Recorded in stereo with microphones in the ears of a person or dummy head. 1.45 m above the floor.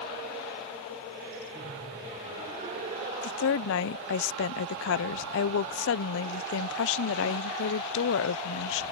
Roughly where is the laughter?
Right.